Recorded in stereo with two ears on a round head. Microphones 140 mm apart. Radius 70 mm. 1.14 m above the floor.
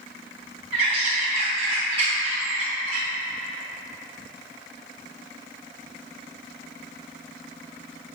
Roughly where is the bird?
Right.